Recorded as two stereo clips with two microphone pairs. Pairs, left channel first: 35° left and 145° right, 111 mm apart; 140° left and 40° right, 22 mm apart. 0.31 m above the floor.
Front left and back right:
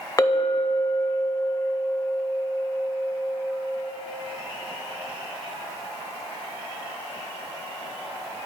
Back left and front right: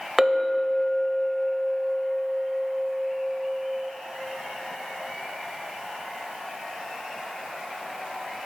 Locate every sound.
0.2 s a clink: 40° left, 0.6 m